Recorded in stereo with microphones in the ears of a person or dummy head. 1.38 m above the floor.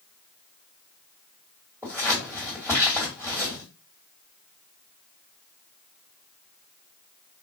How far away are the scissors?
About 1.7 m.